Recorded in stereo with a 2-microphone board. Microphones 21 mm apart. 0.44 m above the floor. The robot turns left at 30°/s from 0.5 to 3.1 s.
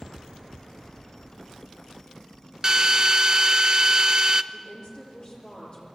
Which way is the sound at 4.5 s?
40° left (ahead or behind).